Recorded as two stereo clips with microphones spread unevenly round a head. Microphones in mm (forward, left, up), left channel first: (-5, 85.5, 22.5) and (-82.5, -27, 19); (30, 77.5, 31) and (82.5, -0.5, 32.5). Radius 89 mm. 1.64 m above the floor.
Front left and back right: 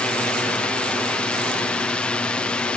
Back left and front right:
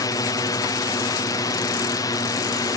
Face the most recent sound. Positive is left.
turn(degrees=135)